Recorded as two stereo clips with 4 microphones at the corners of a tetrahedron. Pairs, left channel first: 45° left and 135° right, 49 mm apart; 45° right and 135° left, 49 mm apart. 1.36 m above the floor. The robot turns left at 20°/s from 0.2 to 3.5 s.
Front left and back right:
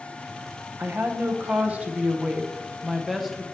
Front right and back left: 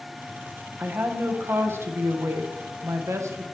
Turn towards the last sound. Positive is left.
turn(degrees=130)